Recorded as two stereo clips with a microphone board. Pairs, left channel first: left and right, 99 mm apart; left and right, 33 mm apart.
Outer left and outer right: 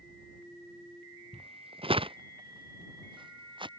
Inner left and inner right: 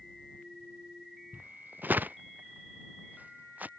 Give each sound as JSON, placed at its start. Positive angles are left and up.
{"t": 1.3, "sound": "footsteps", "side_deg": -70}